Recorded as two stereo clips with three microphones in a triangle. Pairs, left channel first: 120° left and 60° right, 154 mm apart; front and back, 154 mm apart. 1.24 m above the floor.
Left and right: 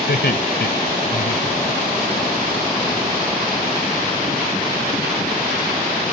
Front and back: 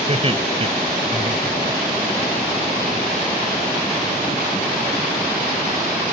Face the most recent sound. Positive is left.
turn(degrees=125)